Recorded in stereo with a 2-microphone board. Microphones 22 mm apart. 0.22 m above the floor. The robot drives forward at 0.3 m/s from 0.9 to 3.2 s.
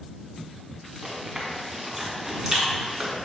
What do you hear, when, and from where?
1.0 s chewing: 20° right (ahead or behind), 2 m; by 3.2 s 15° right (ahead or behind), 2.5 m